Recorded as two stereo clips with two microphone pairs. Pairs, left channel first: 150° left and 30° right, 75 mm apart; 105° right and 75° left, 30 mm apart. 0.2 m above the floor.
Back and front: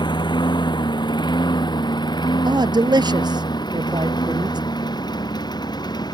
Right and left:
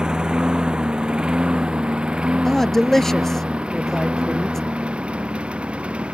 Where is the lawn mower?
140° left; by 6.2 s 125° left.